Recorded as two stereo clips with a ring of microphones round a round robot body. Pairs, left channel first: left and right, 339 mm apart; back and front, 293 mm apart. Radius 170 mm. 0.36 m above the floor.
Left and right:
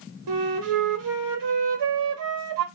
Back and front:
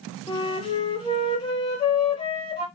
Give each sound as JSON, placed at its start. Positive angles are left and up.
{"t": 0.3, "sound": "a flute", "azimuth_deg": -105, "distance_m": 1.1}